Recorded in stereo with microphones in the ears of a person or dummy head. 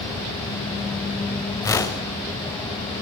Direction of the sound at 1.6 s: 15° left (ahead or behind).